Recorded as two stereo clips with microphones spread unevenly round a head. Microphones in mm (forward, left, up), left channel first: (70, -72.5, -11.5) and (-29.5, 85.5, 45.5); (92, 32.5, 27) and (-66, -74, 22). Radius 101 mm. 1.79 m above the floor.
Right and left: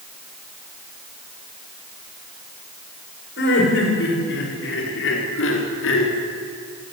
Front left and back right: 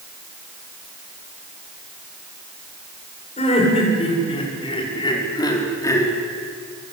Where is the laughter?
25° right, 8.5 m; by 6.1 s 45° right, 5 m.